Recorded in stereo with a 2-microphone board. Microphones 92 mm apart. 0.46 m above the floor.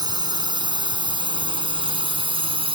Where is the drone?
50° right (ahead or behind); by 2.8 s 75° right (ahead or behind).